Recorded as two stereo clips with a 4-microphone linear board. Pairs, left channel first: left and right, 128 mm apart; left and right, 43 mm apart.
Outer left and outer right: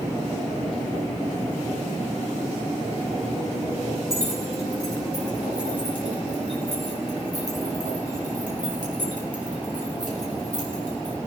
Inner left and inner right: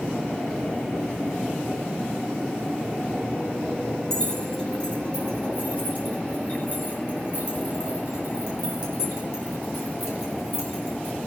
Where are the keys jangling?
20° left (ahead or behind), 6.5 m; by 11.2 s 70° left (ahead or behind), 6 m.